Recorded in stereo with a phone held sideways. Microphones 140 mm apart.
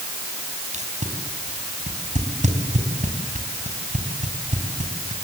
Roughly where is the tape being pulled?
Right.